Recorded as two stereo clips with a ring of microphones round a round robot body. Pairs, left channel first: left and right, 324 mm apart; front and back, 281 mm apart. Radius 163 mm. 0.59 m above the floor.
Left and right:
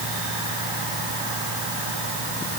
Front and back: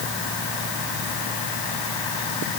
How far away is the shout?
I don't hear a shout.